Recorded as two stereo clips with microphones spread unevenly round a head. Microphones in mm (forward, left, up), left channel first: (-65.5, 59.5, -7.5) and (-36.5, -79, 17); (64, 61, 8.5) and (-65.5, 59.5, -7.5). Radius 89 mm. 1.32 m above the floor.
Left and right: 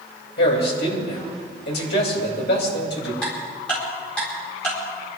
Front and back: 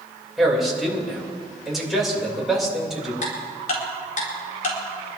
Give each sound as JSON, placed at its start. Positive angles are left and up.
{"t": 0.4, "sound": "a man speaking", "azimuth_deg": 90, "distance_m": 5.5}
{"t": 3.2, "sound": "ticking", "azimuth_deg": 15, "distance_m": 4.0}